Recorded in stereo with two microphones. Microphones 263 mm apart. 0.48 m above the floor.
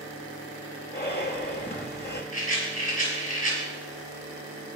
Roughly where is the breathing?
Left.